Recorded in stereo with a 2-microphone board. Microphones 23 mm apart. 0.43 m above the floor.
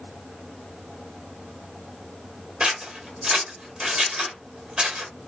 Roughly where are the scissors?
Right.